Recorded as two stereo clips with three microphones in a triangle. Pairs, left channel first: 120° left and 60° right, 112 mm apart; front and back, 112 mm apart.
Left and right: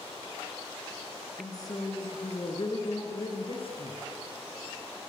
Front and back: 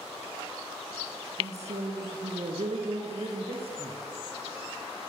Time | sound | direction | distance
1.4 | a woman speaking | 175° left | 5 m